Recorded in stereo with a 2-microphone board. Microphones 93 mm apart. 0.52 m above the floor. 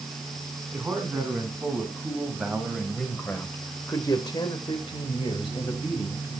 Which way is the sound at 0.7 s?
15° right (ahead or behind).